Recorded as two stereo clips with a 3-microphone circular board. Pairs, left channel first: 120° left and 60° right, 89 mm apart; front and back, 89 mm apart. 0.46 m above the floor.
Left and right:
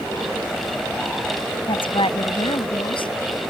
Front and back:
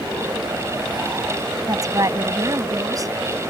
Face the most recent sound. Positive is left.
turn(degrees=135)